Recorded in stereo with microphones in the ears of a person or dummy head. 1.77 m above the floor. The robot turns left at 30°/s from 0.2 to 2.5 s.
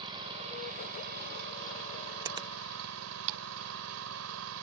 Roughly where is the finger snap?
Right.